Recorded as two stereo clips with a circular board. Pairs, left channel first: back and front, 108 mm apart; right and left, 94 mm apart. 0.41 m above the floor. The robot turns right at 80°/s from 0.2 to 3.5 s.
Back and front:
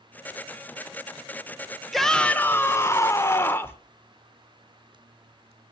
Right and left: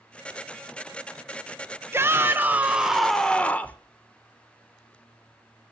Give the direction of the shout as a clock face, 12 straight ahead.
9 o'clock.